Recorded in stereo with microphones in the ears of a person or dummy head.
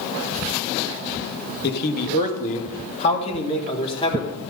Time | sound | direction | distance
1.6 | a man speaking | 55° left (ahead or behind) | 1.3 m